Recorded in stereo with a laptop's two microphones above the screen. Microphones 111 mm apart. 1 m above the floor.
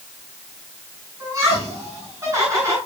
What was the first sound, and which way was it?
Laughter, 35° right (ahead or behind).